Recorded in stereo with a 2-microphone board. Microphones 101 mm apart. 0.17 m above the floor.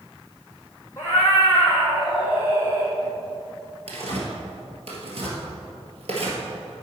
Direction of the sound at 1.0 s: 25° left (ahead or behind).